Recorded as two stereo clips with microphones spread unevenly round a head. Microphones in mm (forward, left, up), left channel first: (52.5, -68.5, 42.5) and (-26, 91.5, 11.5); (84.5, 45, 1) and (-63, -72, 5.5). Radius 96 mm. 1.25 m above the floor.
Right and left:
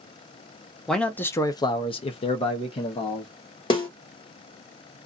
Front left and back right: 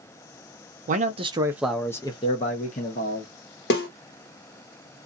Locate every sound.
0.9 s a man speaking: 165° right, 0.7 m; by 3.6 s straight ahead, 1.3 m
3.7 s a snare drum: straight ahead, 1.2 m